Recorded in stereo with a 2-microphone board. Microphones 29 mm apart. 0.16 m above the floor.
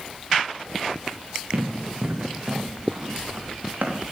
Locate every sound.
1.5 s running footsteps: 40° right (ahead or behind), 4 m; by 4.0 s 70° right (ahead or behind), 4 m